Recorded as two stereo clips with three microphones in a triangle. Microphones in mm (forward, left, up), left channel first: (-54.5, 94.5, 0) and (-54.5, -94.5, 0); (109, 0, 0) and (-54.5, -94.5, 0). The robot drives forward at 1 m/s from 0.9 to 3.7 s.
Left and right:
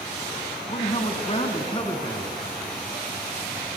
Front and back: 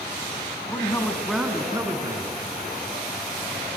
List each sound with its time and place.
0.7 s a man speaking: 90° left, 1.1 m; by 2.3 s 155° left, 1.8 m